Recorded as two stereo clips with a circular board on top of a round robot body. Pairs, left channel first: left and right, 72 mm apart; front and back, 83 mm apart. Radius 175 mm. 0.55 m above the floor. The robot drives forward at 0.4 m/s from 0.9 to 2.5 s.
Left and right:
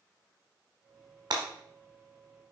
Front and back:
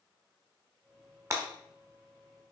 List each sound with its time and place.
1.3 s breaking glass: 120° right, 1.3 m; by 1.4 s 125° right, 1.3 m